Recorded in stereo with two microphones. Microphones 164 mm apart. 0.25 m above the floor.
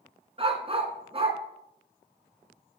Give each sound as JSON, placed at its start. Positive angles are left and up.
{"t": 0.4, "sound": "a dog barking", "side_deg": -40, "distance_m": 1.1}